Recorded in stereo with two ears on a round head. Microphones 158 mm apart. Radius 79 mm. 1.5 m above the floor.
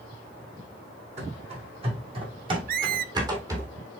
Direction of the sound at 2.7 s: 50° right (ahead or behind).